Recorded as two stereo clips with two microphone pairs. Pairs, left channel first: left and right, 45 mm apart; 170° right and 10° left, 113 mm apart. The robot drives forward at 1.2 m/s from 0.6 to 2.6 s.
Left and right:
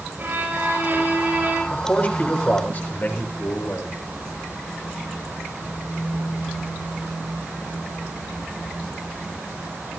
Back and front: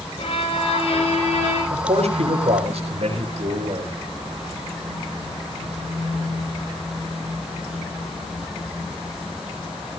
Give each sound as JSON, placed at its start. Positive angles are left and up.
{"t": 0.2, "sound": "a violin", "azimuth_deg": -135, "distance_m": 5.5}
{"t": 1.7, "sound": "a man speaking", "azimuth_deg": 35, "distance_m": 6.5}